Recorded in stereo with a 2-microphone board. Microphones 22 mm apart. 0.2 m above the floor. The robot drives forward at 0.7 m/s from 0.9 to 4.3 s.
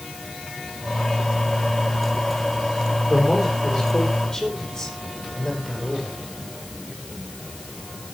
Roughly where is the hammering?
No hammering in this recording.